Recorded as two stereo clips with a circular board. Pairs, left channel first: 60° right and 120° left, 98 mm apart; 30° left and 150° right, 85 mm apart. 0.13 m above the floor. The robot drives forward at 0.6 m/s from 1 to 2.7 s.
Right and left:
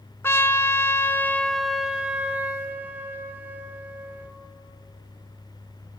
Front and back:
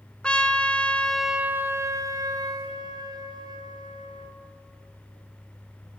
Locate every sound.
0.2 s a trumpet: 35° right, 0.5 m; by 4.3 s 170° right, 0.9 m